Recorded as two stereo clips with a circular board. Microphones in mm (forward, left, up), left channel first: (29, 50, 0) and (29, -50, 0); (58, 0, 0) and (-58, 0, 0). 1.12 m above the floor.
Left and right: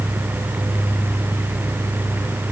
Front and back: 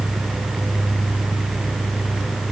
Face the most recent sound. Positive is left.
No sound to turn to.